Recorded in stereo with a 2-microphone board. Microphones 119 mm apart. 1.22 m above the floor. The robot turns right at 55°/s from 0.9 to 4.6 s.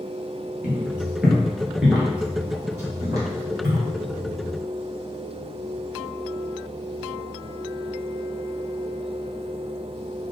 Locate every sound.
0.6 s footsteps: 10° right (ahead or behind), 1.5 m; by 3.9 s 15° right (ahead or behind), 1.8 m